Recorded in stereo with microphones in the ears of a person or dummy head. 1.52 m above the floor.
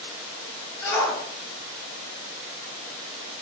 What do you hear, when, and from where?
0.8 s a shout: 15° left (ahead or behind), 2.5 m; by 3.4 s 20° right (ahead or behind), 2.5 m